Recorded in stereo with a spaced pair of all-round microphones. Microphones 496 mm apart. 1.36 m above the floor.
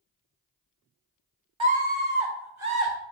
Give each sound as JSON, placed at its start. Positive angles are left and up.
{"t": 1.6, "sound": "a scream", "side_deg": -70, "distance_m": 1.2}